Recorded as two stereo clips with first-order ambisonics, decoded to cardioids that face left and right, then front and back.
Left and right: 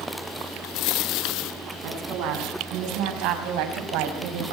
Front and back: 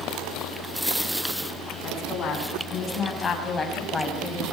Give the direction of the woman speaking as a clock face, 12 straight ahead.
2 o'clock.